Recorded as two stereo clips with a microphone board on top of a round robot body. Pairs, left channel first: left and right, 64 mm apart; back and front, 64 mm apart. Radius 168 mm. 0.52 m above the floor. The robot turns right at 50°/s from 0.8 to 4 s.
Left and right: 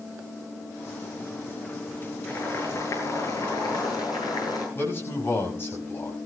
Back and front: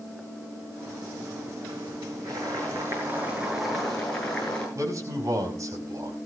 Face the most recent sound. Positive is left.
turn(degrees=35)